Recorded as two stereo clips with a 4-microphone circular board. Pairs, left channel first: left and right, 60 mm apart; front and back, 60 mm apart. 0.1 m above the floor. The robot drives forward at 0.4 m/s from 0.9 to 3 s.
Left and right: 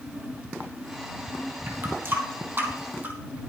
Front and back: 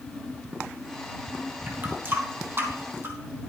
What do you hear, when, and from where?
1.7 s a running tap: 130° right, 2 m; by 3.1 s 140° right, 2.5 m